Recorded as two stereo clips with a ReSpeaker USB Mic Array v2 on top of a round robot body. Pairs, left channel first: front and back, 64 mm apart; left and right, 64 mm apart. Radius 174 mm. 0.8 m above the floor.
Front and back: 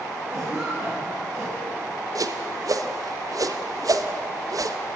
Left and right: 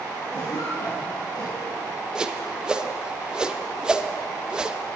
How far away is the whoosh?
About 1.3 m.